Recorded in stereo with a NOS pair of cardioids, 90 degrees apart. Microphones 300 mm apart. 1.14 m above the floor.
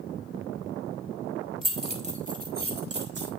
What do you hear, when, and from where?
1.6 s keys jangling: 15° right, 2 m; by 3.3 s 40° right, 2.5 m